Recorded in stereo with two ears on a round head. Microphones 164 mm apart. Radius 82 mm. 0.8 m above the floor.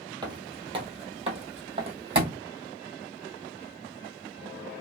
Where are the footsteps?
25° right (ahead or behind), 0.8 m; by 2.4 s 30° right (ahead or behind), 1.5 m.